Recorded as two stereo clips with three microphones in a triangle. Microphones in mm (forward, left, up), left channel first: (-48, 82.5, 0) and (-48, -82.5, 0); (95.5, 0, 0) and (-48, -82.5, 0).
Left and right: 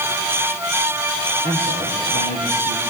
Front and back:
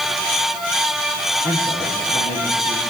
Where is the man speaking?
65° left, 7 m.